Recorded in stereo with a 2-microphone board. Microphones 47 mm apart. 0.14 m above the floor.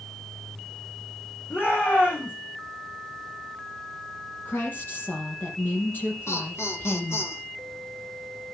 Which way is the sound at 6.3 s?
70° left (ahead or behind).